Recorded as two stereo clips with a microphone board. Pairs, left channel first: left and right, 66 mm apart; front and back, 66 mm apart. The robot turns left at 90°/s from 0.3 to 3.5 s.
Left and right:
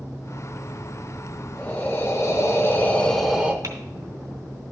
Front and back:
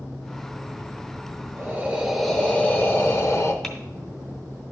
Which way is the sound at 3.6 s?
85° right.